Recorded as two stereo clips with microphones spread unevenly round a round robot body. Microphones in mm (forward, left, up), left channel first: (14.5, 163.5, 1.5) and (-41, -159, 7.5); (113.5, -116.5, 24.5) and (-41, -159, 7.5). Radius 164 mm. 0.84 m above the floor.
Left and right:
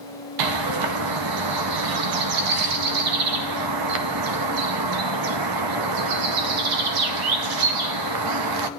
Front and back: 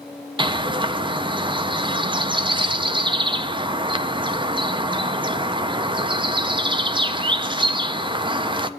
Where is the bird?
105° right, 0.6 m.